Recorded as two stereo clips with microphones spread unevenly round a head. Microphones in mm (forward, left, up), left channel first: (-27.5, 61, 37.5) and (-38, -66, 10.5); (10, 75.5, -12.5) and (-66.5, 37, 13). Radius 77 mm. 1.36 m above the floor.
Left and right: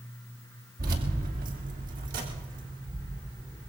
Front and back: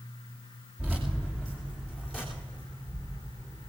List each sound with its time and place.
0.8 s keys jangling: 70° right, 2.5 m; by 3.7 s 55° right, 4 m